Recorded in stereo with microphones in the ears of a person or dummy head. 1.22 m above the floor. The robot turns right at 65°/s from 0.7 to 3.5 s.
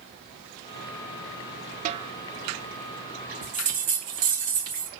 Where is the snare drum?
45° right (ahead or behind), 0.5 m; by 2.1 s 25° right (ahead or behind), 0.5 m.